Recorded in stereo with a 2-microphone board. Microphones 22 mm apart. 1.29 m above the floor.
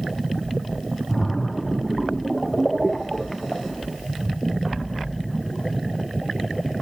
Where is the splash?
5° right (ahead or behind), 0.9 m.